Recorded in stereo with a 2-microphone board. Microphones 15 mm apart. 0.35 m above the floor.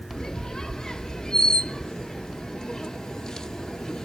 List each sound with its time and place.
0.1 s a squeak: 60° left (ahead or behind), 0.9 m